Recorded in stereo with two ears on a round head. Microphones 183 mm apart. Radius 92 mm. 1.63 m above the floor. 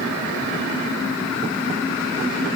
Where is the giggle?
I don't hear a giggle.